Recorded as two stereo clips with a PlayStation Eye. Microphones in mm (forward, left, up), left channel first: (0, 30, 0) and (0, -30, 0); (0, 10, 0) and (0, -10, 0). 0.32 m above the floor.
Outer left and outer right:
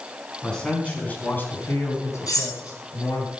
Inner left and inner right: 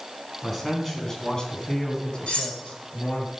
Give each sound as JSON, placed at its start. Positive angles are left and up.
{"t": 0.4, "sound": "a man speaking", "side_deg": 10, "distance_m": 3.5}
{"t": 2.3, "sound": "cutlery clinking", "side_deg": 80, "distance_m": 8.0}